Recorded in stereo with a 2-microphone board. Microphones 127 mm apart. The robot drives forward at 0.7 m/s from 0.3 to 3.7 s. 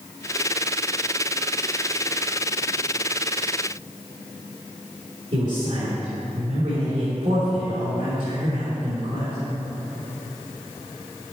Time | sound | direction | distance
5.3 | a man speaking | 65° right (ahead or behind) | 3 m